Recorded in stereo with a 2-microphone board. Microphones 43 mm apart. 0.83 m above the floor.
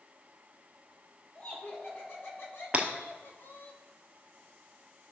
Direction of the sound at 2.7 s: 30° right (ahead or behind).